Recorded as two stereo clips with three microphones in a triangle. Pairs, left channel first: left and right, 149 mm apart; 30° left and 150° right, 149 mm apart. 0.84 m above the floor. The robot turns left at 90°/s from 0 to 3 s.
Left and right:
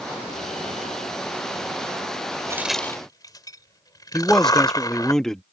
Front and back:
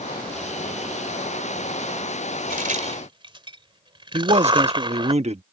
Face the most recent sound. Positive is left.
turn(degrees=175)